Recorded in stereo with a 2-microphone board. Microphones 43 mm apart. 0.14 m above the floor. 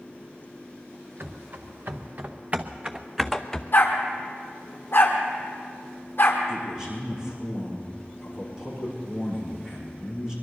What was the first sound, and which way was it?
Running footsteps, 60° right (ahead or behind).